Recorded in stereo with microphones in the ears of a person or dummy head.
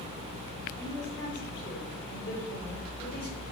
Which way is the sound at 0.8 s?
50° left (ahead or behind).